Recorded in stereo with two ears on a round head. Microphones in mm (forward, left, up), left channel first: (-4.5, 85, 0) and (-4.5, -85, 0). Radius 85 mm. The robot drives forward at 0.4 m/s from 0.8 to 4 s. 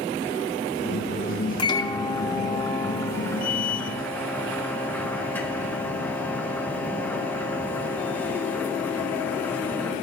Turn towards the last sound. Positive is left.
turn(degrees=10)  # may be behind; listen again after turning